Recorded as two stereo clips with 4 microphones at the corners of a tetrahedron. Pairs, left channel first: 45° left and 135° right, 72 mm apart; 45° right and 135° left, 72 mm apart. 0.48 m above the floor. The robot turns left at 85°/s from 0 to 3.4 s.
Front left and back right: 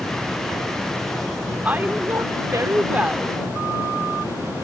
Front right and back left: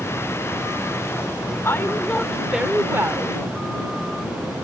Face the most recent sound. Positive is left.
turn(degrees=135)